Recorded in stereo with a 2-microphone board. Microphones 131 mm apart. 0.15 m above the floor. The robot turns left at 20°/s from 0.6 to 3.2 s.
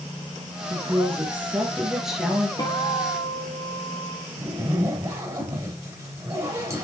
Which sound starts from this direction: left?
A guitar, at 2.6 s.